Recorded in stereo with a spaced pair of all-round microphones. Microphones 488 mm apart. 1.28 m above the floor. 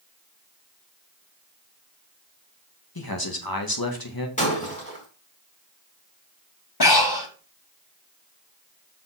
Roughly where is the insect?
I don't hear an insect.